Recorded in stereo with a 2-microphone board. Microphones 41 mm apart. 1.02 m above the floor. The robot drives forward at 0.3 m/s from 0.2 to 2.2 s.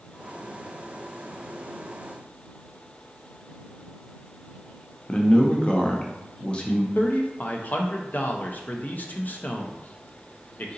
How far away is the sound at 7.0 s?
About 0.6 m.